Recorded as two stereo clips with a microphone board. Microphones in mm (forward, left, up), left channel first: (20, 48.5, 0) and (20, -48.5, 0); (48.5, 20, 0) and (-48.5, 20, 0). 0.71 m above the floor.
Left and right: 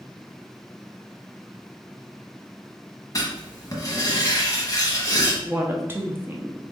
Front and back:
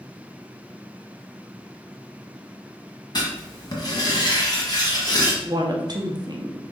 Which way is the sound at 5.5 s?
150° right.